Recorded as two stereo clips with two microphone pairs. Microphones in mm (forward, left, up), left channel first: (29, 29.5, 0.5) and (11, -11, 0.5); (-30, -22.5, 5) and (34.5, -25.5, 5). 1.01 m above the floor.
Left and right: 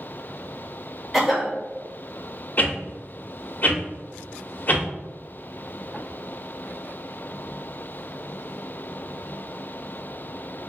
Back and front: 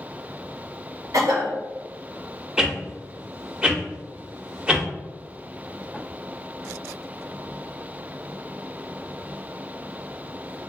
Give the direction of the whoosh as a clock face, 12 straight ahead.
10 o'clock.